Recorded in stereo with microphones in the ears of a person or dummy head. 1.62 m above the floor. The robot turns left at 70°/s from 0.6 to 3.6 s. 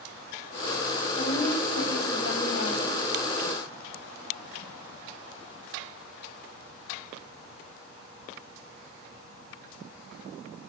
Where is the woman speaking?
155° left, 9.5 m; by 3.0 s 25° left, 9.5 m.